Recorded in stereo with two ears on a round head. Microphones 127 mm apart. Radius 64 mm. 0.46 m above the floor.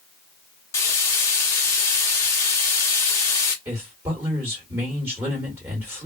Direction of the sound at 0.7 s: 20° left (ahead or behind).